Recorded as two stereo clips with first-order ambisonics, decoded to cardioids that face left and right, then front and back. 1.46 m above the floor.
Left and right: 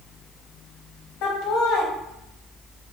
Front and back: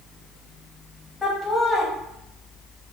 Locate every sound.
1.2 s laughter: 85° left, 0.7 m